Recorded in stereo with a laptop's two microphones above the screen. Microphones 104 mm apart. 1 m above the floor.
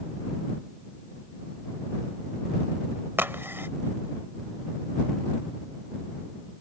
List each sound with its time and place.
3.2 s a crack: 20° right (ahead or behind)